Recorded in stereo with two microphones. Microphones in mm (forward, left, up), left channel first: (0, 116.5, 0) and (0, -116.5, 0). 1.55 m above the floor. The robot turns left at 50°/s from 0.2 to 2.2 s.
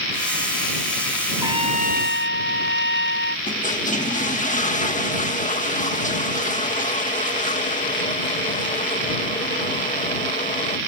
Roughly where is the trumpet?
Ahead.